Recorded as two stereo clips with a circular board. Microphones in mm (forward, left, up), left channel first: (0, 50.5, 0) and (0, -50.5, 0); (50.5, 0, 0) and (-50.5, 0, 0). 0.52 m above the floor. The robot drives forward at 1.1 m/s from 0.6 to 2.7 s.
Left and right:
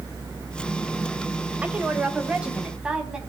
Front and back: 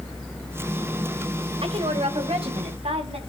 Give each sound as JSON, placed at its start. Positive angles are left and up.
{"t": 1.6, "sound": "a woman speaking", "azimuth_deg": -165, "distance_m": 2.0}